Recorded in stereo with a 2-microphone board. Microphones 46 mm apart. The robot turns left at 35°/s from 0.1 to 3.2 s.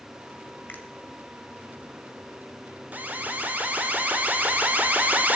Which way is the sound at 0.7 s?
45° left (ahead or behind).